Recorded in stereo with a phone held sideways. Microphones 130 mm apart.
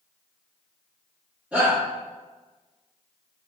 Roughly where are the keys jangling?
I don't hear keys jangling.